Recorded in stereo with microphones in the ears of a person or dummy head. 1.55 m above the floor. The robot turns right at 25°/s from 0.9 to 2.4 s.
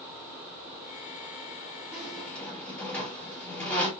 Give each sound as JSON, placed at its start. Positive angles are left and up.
{"t": 1.9, "sound": "a squeak", "side_deg": -5, "distance_m": 1.7}